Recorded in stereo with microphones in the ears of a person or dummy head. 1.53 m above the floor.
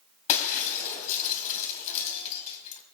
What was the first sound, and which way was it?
Breaking glass, 45° left (ahead or behind).